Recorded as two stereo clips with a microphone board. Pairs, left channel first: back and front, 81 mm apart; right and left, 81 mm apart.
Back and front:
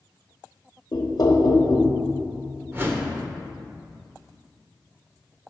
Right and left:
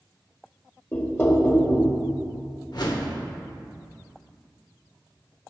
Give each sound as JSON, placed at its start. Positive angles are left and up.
{"t": 0.9, "sound": "knocking", "azimuth_deg": -155, "distance_m": 1.1}
{"t": 2.7, "sound": "a whoosh", "azimuth_deg": -60, "distance_m": 1.2}